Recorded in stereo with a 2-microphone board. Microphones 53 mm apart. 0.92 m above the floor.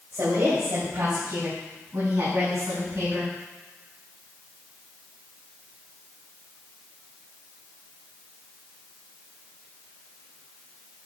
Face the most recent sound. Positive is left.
turn(degrees=-70)  # may be behind; listen again after turning